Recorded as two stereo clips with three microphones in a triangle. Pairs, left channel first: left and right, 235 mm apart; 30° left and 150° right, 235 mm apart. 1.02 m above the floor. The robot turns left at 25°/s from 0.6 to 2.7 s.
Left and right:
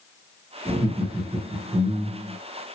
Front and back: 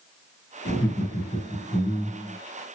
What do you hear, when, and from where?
0.7 s laughter: straight ahead, 2.5 m; by 2.4 s 40° right, 2.5 m